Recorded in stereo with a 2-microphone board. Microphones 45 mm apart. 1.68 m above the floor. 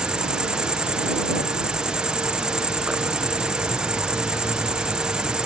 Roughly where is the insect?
Centre.